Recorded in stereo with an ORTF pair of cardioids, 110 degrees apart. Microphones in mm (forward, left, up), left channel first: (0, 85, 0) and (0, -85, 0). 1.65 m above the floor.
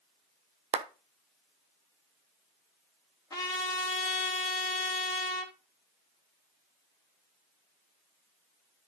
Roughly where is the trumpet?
Ahead.